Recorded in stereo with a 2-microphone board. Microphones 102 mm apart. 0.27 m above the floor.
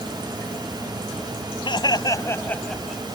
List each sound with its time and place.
1.6 s laughter: 55° left (ahead or behind); by 3.0 s 5° right (ahead or behind)